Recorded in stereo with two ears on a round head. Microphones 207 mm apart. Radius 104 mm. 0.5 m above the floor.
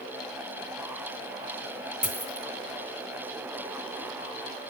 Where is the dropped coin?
5° right (ahead or behind), 1.6 m.